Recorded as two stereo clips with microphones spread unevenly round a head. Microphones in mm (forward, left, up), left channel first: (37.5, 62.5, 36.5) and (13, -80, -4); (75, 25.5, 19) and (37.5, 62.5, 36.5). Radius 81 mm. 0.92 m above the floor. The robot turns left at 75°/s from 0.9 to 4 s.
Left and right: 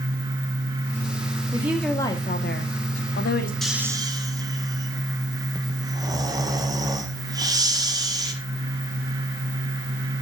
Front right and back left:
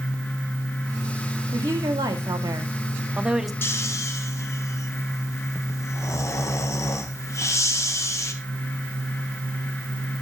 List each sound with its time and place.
1.5 s a woman speaking: 165° right, 1.4 m; by 3.5 s 45° left, 1.4 m
3.6 s snoring: 10° right, 1.4 m; by 8.3 s 40° right, 1.4 m